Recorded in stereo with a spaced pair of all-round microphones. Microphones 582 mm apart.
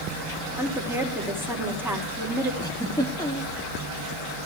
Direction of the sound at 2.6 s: 5° left (ahead or behind).